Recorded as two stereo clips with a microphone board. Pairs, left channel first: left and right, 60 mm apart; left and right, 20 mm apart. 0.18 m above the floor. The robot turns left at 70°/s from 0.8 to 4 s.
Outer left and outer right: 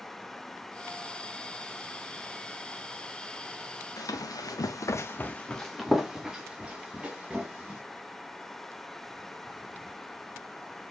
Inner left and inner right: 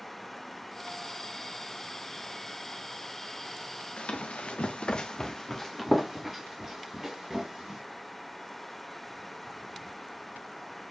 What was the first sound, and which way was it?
Running footsteps, 70° left (ahead or behind).